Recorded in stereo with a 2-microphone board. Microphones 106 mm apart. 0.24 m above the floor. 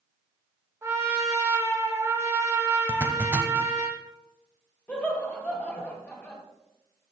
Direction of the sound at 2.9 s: 20° right (ahead or behind).